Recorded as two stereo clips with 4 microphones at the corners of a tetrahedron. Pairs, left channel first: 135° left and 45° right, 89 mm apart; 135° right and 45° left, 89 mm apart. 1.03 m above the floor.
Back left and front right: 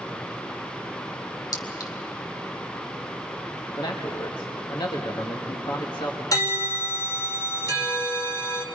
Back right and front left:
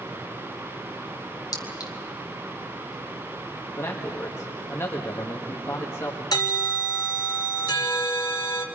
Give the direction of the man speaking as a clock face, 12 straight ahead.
6 o'clock.